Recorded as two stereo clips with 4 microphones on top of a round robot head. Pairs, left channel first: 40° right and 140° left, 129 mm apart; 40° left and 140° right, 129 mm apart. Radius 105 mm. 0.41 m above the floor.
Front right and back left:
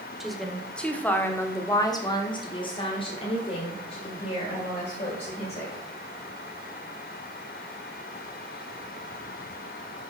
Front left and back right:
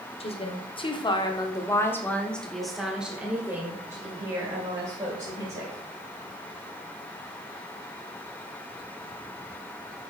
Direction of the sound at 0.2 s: 50° left.